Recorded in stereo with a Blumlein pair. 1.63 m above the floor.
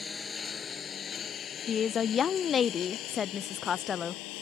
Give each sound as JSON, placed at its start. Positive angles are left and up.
{"t": 0.0, "sound": "a lawn mower", "azimuth_deg": 15}
{"t": 1.7, "sound": "a woman speaking", "azimuth_deg": 25}